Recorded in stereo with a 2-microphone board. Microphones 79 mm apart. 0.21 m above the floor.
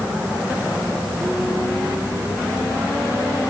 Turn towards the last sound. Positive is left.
No sound to turn to.